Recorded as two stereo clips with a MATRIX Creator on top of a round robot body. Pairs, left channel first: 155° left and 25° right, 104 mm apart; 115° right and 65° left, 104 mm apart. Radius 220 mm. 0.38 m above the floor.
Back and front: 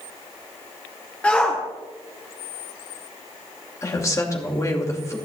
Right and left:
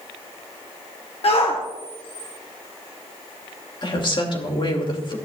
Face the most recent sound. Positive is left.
turn(degrees=-145)